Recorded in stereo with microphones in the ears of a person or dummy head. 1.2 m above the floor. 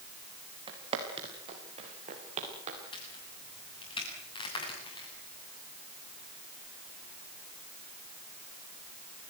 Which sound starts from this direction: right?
Footsteps, at 0.7 s.